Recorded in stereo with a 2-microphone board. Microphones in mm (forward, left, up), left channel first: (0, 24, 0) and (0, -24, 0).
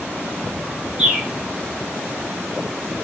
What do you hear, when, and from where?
1.0 s a bird: 10° right (ahead or behind), 0.8 m